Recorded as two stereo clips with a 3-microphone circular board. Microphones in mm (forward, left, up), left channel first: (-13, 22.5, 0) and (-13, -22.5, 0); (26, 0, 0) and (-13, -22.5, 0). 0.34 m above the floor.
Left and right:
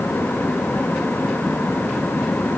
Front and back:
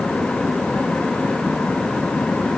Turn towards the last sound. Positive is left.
No sound to turn to.